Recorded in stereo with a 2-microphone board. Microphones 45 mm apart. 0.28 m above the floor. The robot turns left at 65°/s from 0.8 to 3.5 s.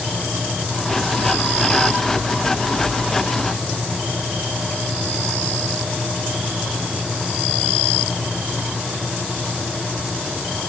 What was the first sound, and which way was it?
Only background noise.